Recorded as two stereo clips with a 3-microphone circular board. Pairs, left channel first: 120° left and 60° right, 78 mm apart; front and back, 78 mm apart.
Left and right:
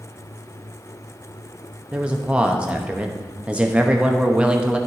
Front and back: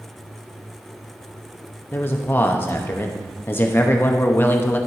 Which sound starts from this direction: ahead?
A man speaking, at 1.9 s.